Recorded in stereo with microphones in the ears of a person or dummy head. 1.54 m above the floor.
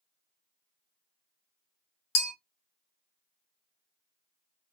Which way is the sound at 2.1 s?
75° left (ahead or behind).